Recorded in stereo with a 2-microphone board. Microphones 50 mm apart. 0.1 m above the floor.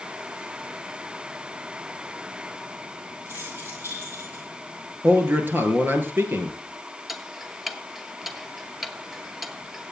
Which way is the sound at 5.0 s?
40° right (ahead or behind).